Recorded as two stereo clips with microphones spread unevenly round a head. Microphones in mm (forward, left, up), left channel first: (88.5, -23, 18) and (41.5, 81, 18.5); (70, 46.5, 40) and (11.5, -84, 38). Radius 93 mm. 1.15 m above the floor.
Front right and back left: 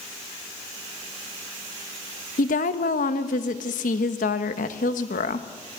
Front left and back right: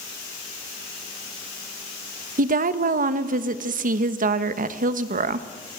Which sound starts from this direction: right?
A woman speaking, at 2.4 s.